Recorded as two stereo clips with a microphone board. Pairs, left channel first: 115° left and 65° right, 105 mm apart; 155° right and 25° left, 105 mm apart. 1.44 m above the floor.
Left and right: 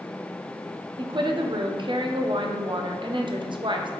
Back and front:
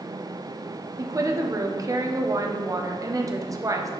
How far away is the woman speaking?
About 0.5 m.